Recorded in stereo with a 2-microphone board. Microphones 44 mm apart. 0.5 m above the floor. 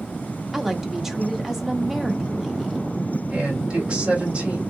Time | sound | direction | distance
0.5 | a woman speaking | 10° right (ahead or behind) | 0.7 m
3.3 | a man speaking | 25° right (ahead or behind) | 1.6 m